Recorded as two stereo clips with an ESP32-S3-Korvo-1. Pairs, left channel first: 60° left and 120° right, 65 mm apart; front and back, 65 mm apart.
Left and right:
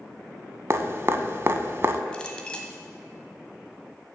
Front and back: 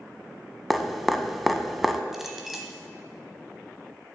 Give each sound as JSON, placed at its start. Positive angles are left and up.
{"t": 0.7, "sound": "dripping", "azimuth_deg": -90, "distance_m": 0.5}
{"t": 2.1, "sound": "a clink", "azimuth_deg": 100, "distance_m": 0.9}